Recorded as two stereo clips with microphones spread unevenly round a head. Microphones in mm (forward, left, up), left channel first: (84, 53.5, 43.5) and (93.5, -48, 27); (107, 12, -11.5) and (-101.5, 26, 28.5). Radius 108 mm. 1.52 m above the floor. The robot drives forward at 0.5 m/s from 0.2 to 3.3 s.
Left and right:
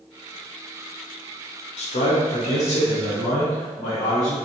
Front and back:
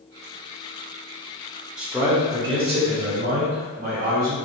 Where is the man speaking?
85° left, 1.0 m; by 4.4 s 125° left, 1.2 m.